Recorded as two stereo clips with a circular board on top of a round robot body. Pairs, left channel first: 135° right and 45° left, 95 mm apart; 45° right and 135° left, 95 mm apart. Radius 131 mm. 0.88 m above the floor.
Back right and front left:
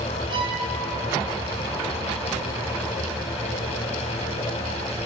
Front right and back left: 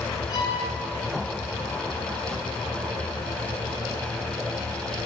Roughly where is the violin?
Ahead.